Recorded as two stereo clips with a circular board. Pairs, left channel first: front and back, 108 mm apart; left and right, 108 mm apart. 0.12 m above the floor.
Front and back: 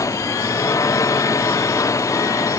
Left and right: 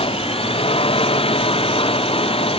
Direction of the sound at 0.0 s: 60° left.